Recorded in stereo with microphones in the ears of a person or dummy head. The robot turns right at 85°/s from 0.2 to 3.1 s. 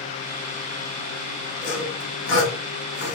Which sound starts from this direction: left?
Sawing, at 1.6 s.